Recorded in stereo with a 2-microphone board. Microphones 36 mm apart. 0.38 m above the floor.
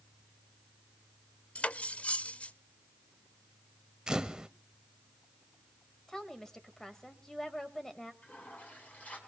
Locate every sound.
1.6 s cutlery clinking: 40° left (ahead or behind), 0.5 m
4.1 s a camera shutter: 20° right (ahead or behind), 0.7 m
6.1 s a woman speaking: 15° left (ahead or behind), 1.8 m
8.2 s a toilet flushing: 50° left (ahead or behind), 4 m